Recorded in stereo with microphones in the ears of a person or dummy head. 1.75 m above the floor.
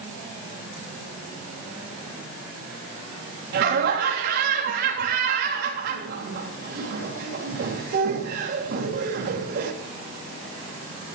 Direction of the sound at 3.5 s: 65° right (ahead or behind).